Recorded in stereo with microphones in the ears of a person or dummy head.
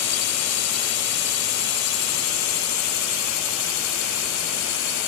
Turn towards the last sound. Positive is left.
turn(degrees=70)  # may be behind; listen again after turning